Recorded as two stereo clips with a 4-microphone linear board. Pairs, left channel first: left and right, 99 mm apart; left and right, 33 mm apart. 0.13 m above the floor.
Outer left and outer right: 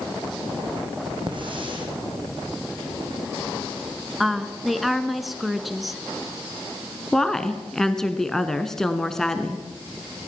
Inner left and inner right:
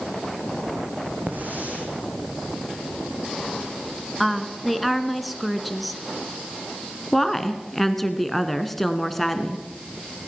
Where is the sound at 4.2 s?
Centre (ahead or behind), 1.5 m.